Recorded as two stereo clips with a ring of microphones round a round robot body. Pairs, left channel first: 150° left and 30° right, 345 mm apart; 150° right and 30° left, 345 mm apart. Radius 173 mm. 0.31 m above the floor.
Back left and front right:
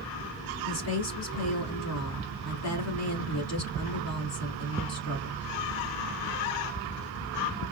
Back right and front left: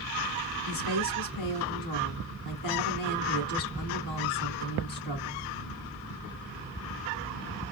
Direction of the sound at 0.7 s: 170° right.